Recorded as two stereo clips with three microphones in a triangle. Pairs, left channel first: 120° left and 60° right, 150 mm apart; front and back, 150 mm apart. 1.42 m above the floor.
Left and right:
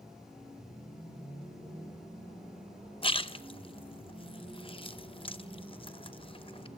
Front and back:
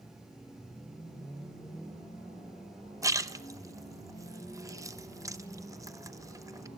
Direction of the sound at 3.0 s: 130° left.